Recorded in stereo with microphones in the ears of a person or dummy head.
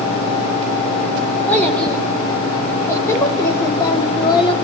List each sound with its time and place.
1.5 s a child speaking: 5° left (ahead or behind), 3.5 m; by 4.5 s 25° left (ahead or behind), 2 m